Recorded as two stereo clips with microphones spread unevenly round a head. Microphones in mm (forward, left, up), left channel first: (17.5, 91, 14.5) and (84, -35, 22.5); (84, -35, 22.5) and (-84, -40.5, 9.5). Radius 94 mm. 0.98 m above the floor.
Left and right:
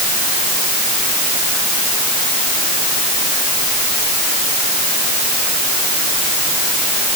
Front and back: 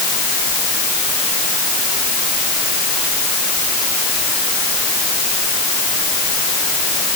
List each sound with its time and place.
Only background noise.